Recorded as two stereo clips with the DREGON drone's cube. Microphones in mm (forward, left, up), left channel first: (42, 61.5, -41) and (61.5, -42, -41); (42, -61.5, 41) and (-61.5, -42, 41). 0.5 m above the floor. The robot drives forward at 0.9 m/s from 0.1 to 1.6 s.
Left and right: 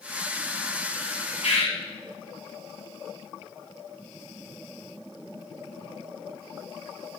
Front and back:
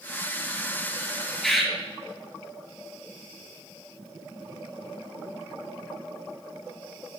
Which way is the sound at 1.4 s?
75° left.